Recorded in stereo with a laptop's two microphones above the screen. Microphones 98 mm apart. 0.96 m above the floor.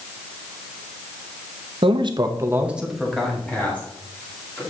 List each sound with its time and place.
1.8 s a man speaking: 65° right (ahead or behind), 0.7 m; by 4.6 s 25° left (ahead or behind), 2 m